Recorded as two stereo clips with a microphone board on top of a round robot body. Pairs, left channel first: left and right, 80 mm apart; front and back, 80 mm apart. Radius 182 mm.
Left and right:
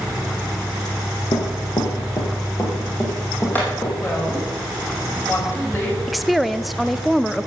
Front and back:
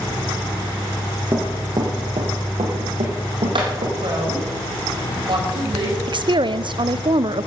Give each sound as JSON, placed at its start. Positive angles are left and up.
{"t": 1.3, "sound": "running footsteps", "azimuth_deg": 115, "distance_m": 1.1}
{"t": 4.0, "sound": "a woman speaking", "azimuth_deg": 155, "distance_m": 4.5}
{"t": 6.1, "sound": "a woman speaking", "azimuth_deg": 180, "distance_m": 0.7}